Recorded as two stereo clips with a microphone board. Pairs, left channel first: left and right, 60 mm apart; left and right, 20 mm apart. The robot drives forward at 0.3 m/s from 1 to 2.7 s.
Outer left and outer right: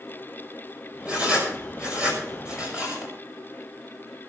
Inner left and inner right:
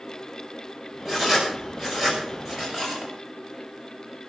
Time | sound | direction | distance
1.1 | writing | 20° right (ahead or behind) | 6 m